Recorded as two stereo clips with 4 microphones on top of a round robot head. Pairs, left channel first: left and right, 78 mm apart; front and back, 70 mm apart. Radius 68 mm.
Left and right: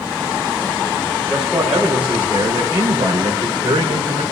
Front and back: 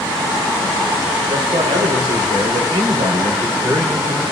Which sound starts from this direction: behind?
A man speaking, at 1.3 s.